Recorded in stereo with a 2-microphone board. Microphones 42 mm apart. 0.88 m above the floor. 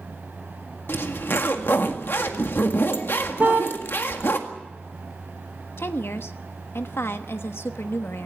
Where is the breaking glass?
No breaking glass in this recording.